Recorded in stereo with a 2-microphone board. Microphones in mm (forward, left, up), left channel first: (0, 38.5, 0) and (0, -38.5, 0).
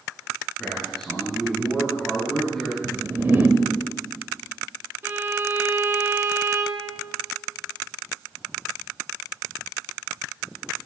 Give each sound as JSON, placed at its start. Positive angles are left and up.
{"t": 0.6, "sound": "a man speaking", "side_deg": 10, "distance_m": 5.5}
{"t": 2.8, "sound": "a whoosh", "side_deg": -25, "distance_m": 1.3}
{"t": 5.0, "sound": "a violin", "side_deg": -30, "distance_m": 1.3}